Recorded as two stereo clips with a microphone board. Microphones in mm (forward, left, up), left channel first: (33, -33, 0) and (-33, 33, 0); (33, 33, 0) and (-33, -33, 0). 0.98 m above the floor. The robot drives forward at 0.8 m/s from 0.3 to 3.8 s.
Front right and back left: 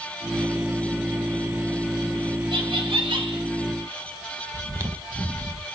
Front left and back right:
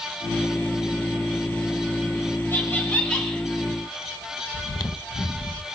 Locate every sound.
2.5 s laughter: 110° left, 2 m; by 3.4 s 125° left, 2.5 m
4.5 s chewing: 85° left, 0.7 m